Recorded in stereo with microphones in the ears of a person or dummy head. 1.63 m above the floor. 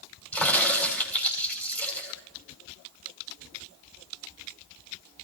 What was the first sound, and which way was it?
A crack, 15° left (ahead or behind).